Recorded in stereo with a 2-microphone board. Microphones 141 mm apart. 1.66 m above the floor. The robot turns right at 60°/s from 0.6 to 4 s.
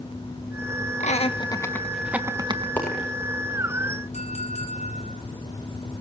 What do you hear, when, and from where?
1.0 s laughter: 60° left (ahead or behind), 1.7 m; by 2.7 s 40° right (ahead or behind), 1.7 m
2.8 s a dropped coin: 10° left (ahead or behind), 7.5 m; by 3.1 s 5° right (ahead or behind), 7.5 m
4.1 s a clink: 50° left (ahead or behind), 5 m